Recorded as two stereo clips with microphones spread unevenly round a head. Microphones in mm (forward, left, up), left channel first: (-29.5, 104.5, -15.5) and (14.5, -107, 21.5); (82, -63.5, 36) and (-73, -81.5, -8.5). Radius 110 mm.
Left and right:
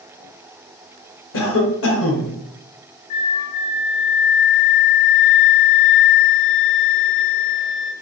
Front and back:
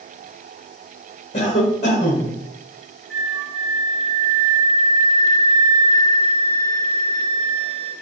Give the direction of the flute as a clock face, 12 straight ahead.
9 o'clock.